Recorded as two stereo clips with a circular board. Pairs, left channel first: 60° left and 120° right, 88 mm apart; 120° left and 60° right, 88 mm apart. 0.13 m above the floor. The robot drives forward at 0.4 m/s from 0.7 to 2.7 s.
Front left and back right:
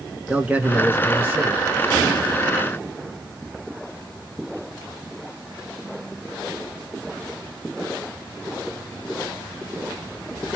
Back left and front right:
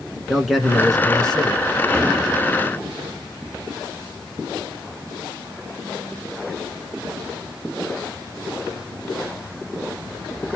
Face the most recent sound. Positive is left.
turn(degrees=-170)